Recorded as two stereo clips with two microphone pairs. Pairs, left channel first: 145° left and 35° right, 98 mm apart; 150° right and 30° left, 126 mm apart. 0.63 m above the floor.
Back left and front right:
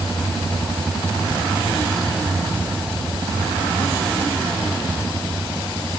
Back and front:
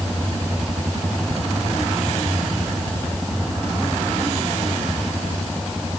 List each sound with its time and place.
Only background noise.